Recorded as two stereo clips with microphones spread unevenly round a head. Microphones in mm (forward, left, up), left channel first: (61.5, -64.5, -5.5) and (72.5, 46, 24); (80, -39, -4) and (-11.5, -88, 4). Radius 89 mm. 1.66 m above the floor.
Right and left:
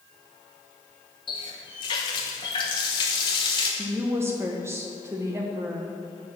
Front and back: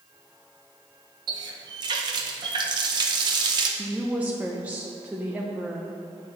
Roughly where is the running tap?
Behind.